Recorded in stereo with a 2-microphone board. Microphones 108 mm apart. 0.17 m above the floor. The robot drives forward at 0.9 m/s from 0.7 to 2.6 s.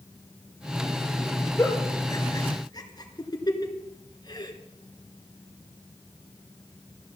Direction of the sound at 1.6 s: 25° left (ahead or behind).